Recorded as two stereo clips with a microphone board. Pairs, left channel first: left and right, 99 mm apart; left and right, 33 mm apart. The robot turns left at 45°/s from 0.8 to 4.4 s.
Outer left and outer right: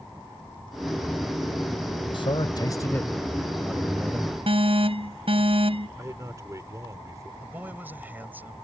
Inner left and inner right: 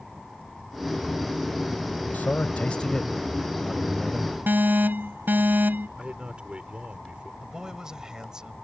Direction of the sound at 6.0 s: 35° right (ahead or behind).